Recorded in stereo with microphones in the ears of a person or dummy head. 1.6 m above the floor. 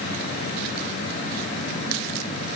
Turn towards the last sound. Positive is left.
No sound to turn to.